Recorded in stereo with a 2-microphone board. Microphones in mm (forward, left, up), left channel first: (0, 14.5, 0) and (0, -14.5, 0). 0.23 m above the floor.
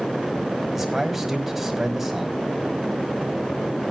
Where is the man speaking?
10° right (ahead or behind), 1.5 m.